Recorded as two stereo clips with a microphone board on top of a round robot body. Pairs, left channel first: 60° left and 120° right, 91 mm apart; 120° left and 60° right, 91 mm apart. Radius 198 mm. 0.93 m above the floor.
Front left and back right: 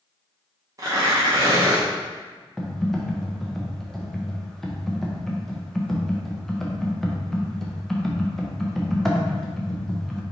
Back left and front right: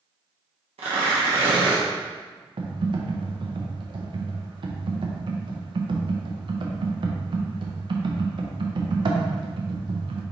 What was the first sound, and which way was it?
Tearing paper, 65° right.